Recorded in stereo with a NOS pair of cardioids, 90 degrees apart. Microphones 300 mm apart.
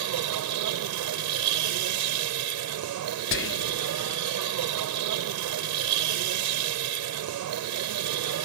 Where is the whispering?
40° left.